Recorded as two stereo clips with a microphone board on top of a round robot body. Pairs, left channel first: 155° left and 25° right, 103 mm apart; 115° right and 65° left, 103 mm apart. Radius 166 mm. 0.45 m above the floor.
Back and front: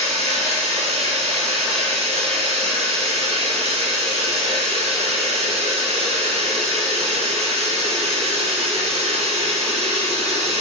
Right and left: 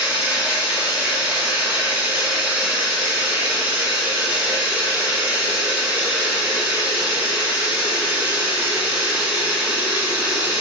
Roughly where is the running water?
Ahead.